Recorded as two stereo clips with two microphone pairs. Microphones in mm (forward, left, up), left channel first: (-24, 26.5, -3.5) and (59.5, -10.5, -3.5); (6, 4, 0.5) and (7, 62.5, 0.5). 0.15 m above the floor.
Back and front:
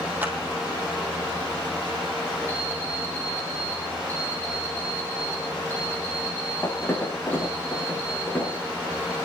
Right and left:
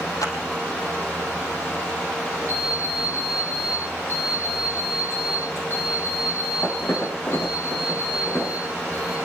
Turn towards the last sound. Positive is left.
turn(degrees=-135)